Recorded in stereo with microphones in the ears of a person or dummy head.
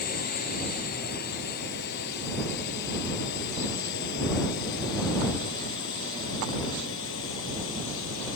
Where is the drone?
45° left (ahead or behind); by 8.4 s 65° left (ahead or behind).